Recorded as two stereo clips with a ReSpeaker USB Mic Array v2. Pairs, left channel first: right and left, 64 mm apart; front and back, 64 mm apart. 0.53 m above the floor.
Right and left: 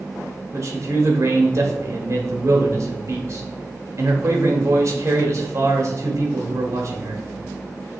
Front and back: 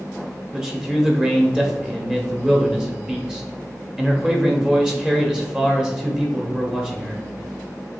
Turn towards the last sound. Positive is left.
turn(degrees=100)